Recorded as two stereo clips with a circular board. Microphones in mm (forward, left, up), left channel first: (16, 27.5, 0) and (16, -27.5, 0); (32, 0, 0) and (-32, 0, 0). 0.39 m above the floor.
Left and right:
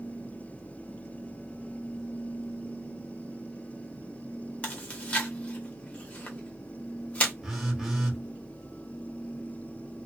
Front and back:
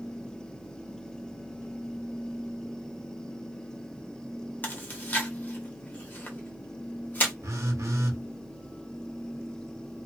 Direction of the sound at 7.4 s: 170° right.